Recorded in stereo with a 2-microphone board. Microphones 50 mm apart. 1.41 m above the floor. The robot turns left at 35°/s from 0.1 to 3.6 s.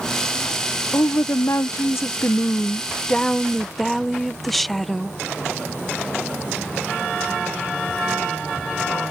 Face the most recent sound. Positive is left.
turn(degrees=5)